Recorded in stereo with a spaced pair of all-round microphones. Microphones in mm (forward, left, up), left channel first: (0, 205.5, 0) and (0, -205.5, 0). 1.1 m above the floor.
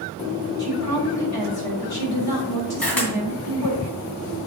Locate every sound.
0.6 s a woman speaking: 60° left (ahead or behind), 3 m
2.8 s a camera shutter: 60° left (ahead or behind), 2.5 m